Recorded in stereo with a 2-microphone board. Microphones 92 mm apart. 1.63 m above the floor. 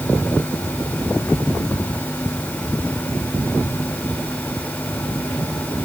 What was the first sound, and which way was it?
Only background noise.